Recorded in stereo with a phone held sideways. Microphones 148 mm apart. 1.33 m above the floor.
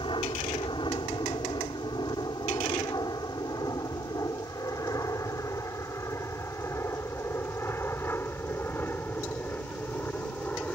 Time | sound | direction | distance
0.0 | an aircraft | 35° left (ahead or behind) | ?